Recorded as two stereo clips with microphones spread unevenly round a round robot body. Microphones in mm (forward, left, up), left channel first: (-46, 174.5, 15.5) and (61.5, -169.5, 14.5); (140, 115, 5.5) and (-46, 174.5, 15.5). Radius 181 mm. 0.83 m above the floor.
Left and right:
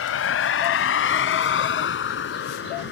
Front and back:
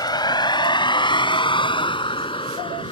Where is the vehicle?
50° left; by 2.9 s 45° left.